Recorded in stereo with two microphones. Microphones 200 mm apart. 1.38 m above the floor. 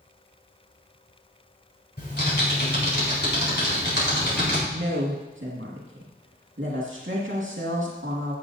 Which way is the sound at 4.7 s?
75° right (ahead or behind).